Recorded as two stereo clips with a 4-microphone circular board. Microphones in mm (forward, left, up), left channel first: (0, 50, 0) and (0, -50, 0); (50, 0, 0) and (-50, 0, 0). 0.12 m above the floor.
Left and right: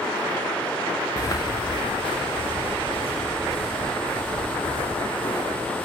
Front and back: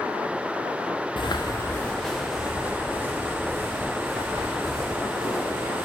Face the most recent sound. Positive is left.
turn(degrees=125)